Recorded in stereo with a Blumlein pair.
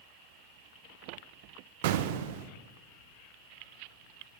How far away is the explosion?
About 0.6 m.